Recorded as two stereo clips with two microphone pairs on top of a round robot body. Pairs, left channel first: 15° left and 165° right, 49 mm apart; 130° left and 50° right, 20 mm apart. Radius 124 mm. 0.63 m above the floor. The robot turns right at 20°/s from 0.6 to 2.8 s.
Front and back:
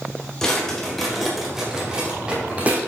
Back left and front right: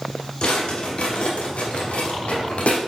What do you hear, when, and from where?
0.4 s a drawer: 85° left, 1.2 m; by 2.8 s 130° left, 1.2 m